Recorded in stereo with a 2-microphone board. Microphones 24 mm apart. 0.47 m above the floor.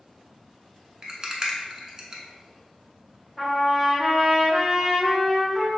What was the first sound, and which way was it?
A rattle, 30° right (ahead or behind).